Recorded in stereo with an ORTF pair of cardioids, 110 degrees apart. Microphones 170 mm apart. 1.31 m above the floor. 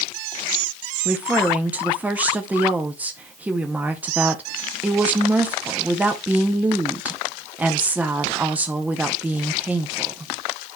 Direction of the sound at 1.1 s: 10° right.